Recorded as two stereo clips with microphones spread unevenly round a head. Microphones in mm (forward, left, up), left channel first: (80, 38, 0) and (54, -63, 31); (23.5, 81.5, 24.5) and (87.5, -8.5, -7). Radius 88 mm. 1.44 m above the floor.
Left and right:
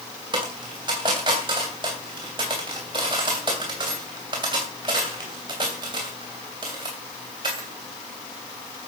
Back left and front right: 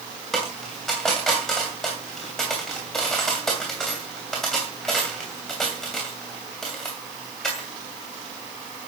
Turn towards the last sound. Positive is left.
turn(degrees=-155)